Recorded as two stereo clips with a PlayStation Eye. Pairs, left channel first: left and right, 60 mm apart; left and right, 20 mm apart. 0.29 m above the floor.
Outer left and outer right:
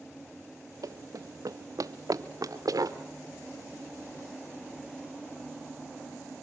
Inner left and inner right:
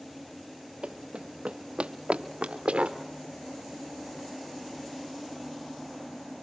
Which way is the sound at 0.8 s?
70° right (ahead or behind).